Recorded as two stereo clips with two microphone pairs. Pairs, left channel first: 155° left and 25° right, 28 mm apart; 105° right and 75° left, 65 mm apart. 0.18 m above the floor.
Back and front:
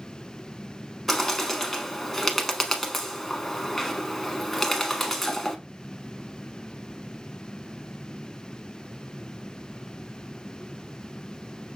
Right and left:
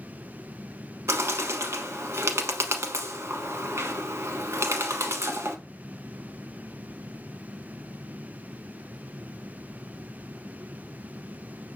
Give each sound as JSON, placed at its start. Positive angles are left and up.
{"t": 1.1, "sound": "a bird", "azimuth_deg": 70, "distance_m": 0.9}